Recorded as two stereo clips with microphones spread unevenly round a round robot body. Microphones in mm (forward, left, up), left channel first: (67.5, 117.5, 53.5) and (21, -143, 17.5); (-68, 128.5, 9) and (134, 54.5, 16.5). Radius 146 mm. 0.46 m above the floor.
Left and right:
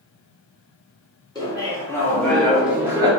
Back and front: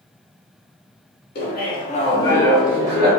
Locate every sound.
1.4 s laughter: 160° left, 1.1 m; by 3.1 s 50° right, 0.7 m